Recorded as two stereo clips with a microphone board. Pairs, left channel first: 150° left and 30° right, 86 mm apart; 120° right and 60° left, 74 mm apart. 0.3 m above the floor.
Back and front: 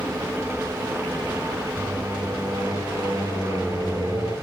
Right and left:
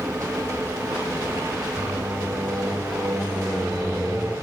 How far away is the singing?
About 4 m.